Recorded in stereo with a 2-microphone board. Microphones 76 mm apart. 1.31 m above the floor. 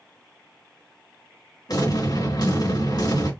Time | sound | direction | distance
1.7 | an explosion | 65° left (ahead or behind) | 2.5 m